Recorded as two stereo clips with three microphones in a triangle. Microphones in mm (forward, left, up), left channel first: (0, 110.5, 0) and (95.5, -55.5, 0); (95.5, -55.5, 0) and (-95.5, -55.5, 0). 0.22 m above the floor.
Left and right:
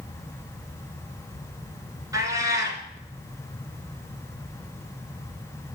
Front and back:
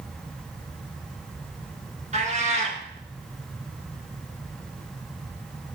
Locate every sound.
2.1 s a cat meowing: 130° right, 1.9 m